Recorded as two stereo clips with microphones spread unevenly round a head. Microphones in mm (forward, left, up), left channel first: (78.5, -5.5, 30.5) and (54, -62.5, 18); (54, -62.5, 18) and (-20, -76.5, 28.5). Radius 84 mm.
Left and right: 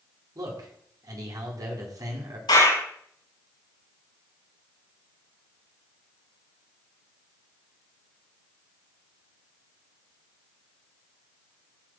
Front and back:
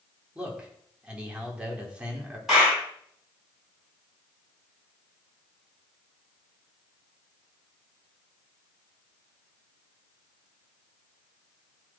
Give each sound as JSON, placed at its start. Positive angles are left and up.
{"t": 0.3, "sound": "a man speaking", "azimuth_deg": -95, "distance_m": 5.0}
{"t": 2.5, "sound": "a clap", "azimuth_deg": 105, "distance_m": 7.0}